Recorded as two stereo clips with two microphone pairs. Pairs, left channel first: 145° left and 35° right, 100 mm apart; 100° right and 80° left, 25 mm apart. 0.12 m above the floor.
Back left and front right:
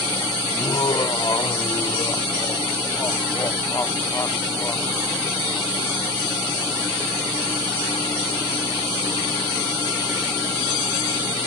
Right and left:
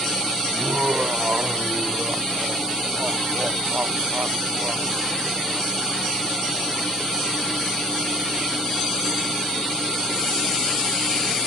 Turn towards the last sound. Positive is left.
turn(degrees=80)